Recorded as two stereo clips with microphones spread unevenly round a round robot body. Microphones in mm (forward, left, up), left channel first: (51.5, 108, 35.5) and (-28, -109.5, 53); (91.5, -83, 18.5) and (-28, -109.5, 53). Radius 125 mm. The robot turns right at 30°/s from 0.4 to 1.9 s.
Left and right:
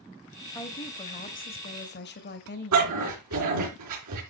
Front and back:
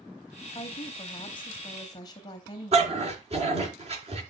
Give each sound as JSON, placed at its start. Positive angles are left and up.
{"t": 0.6, "sound": "a woman speaking", "azimuth_deg": 5, "distance_m": 1.0}
{"t": 2.7, "sound": "a dog barking", "azimuth_deg": -130, "distance_m": 4.0}